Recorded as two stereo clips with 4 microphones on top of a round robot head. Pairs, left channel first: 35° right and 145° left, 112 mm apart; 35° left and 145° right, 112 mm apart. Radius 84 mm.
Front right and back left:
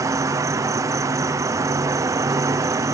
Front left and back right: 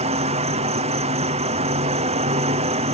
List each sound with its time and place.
0.0 s an insect: 155° right